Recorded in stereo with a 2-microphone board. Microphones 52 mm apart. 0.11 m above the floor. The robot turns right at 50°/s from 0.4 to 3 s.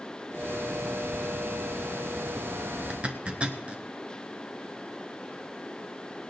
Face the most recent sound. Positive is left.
turn(degrees=-25)  # may be behind; listen again after turning